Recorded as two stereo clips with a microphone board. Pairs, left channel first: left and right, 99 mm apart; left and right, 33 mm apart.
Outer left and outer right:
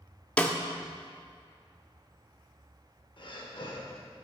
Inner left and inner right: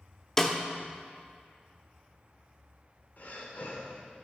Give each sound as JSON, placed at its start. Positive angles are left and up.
{"t": 0.4, "sound": "a snare drum", "side_deg": 10, "distance_m": 0.7}
{"t": 3.2, "sound": "breathing", "side_deg": 55, "distance_m": 1.3}